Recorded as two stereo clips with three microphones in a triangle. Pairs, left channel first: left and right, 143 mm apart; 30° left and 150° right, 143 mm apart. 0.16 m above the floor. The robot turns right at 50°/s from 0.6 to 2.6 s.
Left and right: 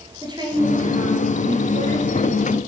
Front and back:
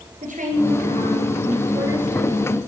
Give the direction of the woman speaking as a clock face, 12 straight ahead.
5 o'clock.